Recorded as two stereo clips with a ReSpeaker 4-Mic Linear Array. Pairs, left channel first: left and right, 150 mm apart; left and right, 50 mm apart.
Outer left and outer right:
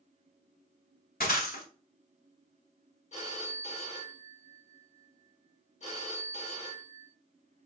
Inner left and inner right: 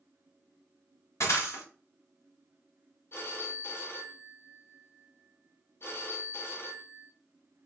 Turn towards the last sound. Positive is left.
turn(degrees=50)  # may be behind; listen again after turning